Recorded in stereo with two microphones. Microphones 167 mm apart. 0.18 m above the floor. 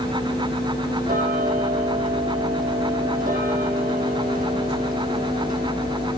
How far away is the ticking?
About 3 m.